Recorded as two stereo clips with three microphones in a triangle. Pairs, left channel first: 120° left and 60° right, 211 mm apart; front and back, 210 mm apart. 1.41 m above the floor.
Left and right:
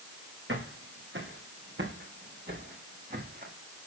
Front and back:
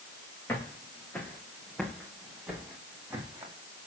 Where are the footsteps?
80° right, 6 m; by 3.8 s 105° right, 5.5 m.